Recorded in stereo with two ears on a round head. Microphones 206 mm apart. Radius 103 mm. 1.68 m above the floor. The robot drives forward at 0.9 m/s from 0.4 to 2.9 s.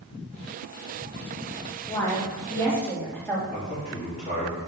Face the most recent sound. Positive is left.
turn(degrees=30)  # may be behind; listen again after turning